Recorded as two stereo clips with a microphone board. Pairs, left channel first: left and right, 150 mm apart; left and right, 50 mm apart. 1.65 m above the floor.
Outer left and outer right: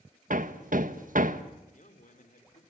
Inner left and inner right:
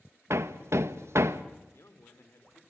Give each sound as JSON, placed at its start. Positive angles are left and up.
{"t": 0.3, "sound": "hammering", "side_deg": -65, "distance_m": 1.4}
{"t": 1.6, "sound": "a man speaking", "side_deg": 60, "distance_m": 4.0}